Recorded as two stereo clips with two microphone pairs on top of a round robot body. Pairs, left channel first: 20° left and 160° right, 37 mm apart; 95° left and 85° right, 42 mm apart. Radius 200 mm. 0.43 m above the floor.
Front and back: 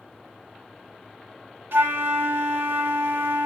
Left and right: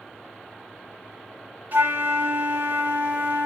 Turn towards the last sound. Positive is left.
turn(degrees=-130)